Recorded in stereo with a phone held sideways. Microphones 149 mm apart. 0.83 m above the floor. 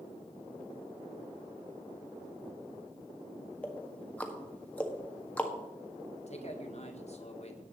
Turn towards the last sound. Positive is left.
turn(degrees=50)  # may be behind; listen again after turning